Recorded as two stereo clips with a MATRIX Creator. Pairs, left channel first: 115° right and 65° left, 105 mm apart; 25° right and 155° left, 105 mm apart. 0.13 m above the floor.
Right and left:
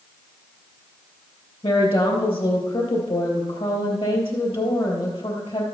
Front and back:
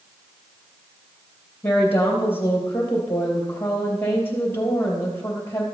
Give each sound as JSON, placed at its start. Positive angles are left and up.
{"t": 1.6, "sound": "a woman speaking", "azimuth_deg": -90, "distance_m": 3.0}